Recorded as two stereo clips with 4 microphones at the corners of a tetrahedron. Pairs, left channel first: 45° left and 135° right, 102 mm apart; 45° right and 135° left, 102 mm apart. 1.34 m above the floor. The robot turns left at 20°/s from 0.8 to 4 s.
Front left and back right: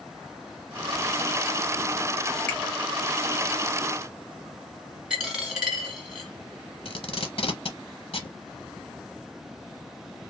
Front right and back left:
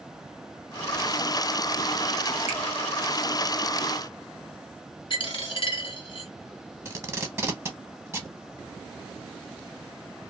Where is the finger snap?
30° right, 1.3 m; by 2.6 s 35° right, 1.3 m.